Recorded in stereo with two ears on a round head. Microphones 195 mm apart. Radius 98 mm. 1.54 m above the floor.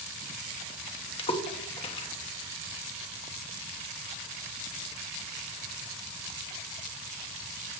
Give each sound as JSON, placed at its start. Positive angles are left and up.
{"t": 1.2, "sound": "a splash", "side_deg": 25, "distance_m": 1.0}